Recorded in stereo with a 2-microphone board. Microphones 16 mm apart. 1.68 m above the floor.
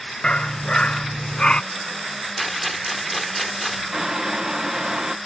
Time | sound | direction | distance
0.2 | a dog barking | 70° left (ahead or behind) | ?
2.4 | a rattle | centre (ahead or behind) | ?
3.9 | boiling | 35° right (ahead or behind) | ?